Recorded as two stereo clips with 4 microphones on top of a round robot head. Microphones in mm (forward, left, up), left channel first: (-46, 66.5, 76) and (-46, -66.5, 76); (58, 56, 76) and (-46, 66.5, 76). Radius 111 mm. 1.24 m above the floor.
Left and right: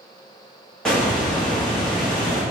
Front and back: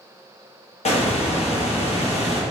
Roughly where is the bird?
Ahead.